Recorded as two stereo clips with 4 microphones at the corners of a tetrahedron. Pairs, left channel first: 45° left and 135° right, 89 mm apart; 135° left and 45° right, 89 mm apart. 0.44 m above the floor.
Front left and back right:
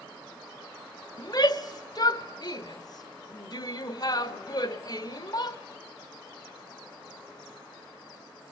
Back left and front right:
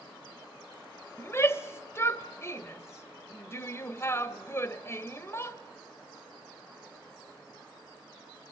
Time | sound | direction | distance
1.2 | a shout | 80° left | 1.3 m